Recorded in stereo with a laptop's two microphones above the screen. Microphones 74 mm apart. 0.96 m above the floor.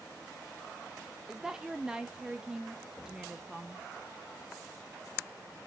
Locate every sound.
1.3 s a woman speaking: 10° right (ahead or behind), 0.6 m